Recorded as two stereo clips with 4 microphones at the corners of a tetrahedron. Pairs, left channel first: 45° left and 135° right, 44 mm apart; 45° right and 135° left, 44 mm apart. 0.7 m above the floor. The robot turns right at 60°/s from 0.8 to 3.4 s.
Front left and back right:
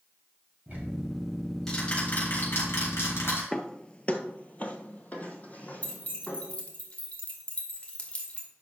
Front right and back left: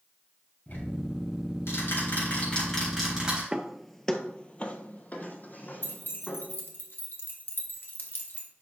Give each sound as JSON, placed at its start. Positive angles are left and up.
{"t": 0.7, "sound": "ticking", "azimuth_deg": -85, "distance_m": 4.0}
{"t": 3.5, "sound": "footsteps", "azimuth_deg": 85, "distance_m": 0.7}
{"t": 5.8, "sound": "keys jangling", "azimuth_deg": -15, "distance_m": 1.7}